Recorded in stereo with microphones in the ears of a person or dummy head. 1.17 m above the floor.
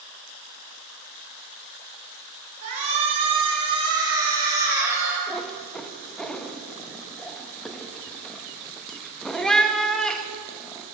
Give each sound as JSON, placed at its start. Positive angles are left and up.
{"t": 2.6, "sound": "a shout", "side_deg": -40, "distance_m": 4.5}
{"t": 5.3, "sound": "a cat meowing", "side_deg": 5, "distance_m": 0.7}